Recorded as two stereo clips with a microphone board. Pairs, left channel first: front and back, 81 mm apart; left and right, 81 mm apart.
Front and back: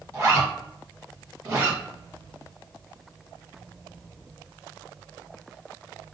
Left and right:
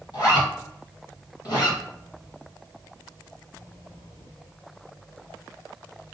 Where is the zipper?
125° left, 1.9 m.